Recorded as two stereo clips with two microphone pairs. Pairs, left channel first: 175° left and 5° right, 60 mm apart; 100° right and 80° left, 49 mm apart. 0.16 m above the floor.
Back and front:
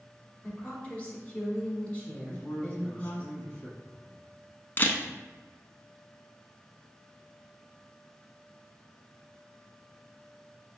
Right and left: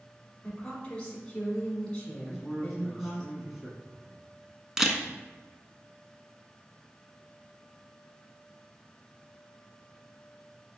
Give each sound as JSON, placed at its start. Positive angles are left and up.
{"t": 0.4, "sound": "a woman speaking", "azimuth_deg": -155, "distance_m": 1.2}
{"t": 2.2, "sound": "a man speaking", "azimuth_deg": 155, "distance_m": 1.2}
{"t": 4.8, "sound": "a camera shutter", "azimuth_deg": 150, "distance_m": 0.5}